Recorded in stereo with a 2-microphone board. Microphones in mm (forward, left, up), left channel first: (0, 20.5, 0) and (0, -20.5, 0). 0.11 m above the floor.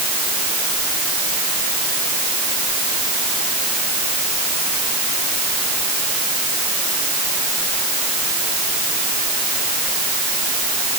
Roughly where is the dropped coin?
No dropped coin in this recording.